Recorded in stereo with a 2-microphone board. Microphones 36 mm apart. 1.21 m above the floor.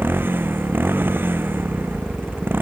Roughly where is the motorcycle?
Right.